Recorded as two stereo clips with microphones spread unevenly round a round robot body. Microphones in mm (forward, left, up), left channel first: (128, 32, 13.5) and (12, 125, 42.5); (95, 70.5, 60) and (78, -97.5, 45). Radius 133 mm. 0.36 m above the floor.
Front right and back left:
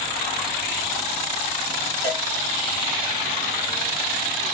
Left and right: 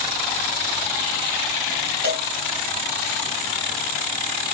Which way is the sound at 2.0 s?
85° right.